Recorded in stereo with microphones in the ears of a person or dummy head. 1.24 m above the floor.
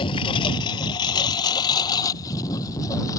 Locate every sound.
0.0 s a lawn mower: 30° left (ahead or behind); by 3.2 s 20° left (ahead or behind)